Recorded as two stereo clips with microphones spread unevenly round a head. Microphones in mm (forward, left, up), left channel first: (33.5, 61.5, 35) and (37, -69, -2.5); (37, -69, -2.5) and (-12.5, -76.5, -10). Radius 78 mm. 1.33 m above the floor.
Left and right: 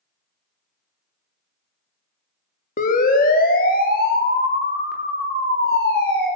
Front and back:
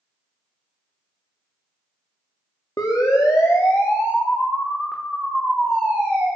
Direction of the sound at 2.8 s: 65° left.